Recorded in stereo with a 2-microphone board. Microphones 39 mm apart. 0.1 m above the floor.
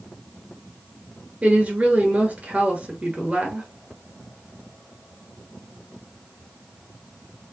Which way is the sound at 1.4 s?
40° right (ahead or behind).